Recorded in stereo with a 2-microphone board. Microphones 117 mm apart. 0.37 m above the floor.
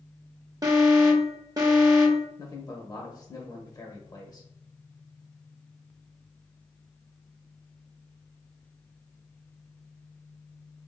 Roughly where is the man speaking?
Left.